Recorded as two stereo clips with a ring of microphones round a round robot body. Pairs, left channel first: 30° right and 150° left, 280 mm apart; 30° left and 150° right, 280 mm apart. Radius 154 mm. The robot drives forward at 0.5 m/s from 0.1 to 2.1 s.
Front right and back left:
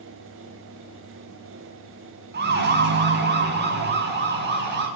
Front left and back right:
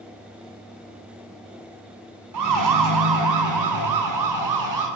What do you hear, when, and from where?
2.3 s a siren: 155° right, 6.5 m